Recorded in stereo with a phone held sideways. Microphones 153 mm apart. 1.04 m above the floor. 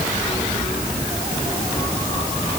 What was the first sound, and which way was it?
Only background noise.